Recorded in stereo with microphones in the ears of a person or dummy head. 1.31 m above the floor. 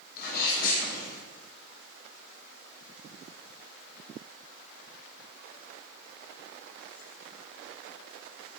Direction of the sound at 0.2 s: 55° left (ahead or behind).